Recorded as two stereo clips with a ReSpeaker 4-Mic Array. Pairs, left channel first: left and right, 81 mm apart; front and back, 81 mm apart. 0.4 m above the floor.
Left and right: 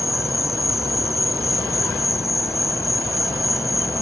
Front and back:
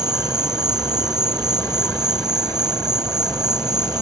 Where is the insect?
140° left.